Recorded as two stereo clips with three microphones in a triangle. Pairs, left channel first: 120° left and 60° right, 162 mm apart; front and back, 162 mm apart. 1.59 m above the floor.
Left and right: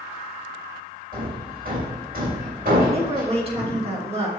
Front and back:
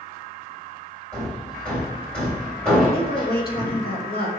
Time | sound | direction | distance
1.1 | hammering | 80° right | 3.5 m
2.9 | a woman speaking | 10° right | 2 m